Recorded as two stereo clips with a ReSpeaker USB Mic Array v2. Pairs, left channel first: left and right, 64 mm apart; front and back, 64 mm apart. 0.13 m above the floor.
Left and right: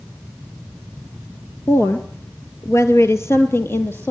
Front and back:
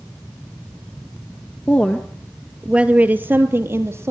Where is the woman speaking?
60° left, 2 m; by 4.1 s 145° left, 3.5 m.